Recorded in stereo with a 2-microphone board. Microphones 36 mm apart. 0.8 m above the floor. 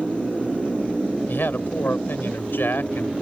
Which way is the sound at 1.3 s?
80° left.